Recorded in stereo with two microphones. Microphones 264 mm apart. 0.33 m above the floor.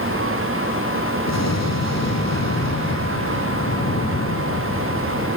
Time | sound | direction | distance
1.3 | an explosion | 80° left | 4 m